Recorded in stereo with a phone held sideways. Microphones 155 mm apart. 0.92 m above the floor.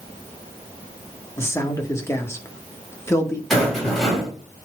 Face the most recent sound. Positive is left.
turn(degrees=0)  # may be behind; listen again after turning